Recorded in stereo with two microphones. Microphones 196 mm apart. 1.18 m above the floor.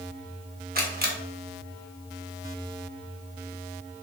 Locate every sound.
0.8 s a camera shutter: 50° right (ahead or behind), 1.0 m